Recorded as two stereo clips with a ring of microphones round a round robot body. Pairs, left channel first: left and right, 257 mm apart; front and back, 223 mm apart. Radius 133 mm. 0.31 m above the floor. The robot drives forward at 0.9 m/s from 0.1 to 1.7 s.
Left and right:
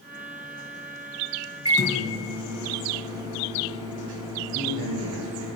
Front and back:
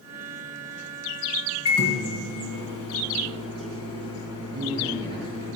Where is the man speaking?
120° right, 4 m.